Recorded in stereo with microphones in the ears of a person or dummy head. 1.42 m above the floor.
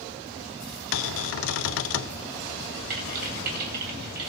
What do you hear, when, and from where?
0.9 s a cupboard door: 75° left (ahead or behind), 0.5 m
2.9 s typing on a keyboard: 55° right (ahead or behind), 3 m